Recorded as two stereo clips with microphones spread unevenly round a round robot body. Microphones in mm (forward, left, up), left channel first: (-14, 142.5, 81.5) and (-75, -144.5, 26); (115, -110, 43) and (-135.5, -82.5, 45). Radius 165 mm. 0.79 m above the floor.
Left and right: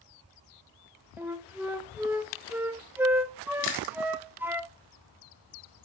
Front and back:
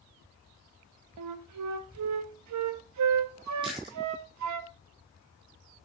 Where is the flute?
Straight behind, 0.7 m.